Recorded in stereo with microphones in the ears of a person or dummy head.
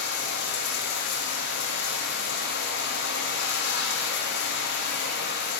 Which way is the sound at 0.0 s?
60° left (ahead or behind).